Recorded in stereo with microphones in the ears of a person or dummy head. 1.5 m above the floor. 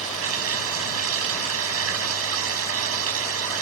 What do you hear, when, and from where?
0.0 s running water: 85° right